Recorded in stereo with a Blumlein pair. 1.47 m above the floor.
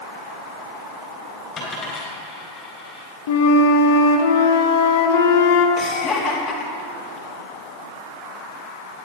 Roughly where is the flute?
Ahead left.